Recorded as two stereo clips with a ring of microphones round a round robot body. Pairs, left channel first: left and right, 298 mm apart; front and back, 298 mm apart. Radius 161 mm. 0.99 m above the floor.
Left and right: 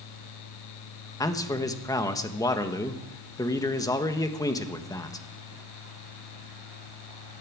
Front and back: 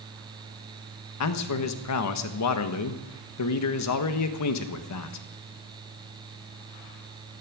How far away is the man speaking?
About 1.4 m.